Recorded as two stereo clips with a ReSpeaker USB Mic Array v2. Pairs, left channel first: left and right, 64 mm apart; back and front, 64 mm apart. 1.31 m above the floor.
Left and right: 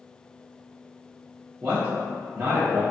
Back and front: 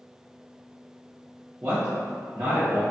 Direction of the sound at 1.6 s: 45° right.